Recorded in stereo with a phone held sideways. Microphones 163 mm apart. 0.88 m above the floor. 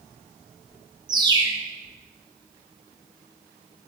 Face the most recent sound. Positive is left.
turn(degrees=-25)  # may be behind; listen again after turning